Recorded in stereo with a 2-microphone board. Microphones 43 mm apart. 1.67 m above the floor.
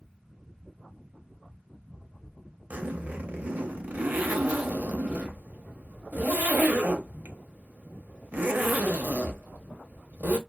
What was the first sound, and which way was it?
A zipper, 40° right (ahead or behind).